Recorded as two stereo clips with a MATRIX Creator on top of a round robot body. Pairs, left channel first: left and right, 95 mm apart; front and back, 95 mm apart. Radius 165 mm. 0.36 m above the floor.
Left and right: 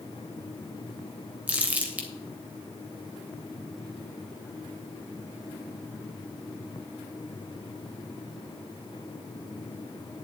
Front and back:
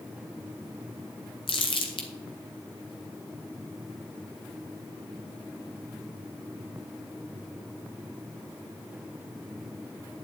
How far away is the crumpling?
About 2.5 m.